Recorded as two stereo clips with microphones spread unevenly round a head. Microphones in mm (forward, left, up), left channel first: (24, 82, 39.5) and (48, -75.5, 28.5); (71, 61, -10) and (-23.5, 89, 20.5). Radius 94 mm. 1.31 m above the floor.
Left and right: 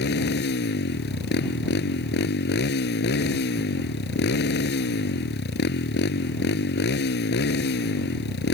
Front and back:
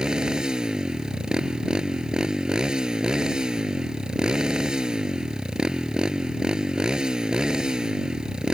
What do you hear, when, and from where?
0.0 s a motorcycle: 80° left